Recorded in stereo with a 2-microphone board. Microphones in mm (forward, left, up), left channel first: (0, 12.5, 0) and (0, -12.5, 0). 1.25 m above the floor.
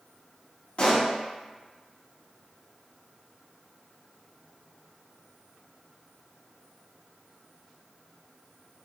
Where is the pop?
50° left (ahead or behind), 1.1 m.